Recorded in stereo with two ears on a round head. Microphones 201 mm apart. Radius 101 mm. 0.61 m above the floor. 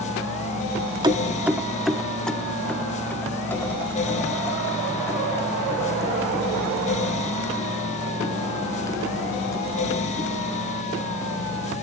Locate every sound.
1.0 s keys jangling: 20° right (ahead or behind), 0.6 m; by 11.7 s 15° left (ahead or behind), 7.5 m